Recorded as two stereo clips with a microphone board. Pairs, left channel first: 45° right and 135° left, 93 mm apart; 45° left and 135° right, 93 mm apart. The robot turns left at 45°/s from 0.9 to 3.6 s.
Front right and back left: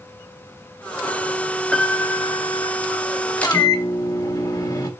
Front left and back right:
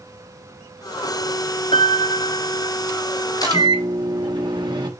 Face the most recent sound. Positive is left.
turn(degrees=-95)